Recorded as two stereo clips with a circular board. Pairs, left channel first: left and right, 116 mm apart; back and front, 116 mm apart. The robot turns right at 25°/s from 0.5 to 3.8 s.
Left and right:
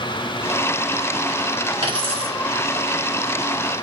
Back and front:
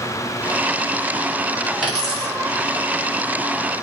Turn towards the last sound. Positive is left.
turn(degrees=-40)